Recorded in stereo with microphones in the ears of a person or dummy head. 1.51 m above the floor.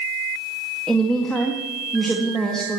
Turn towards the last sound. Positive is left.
turn(degrees=5)  # may be behind; listen again after turning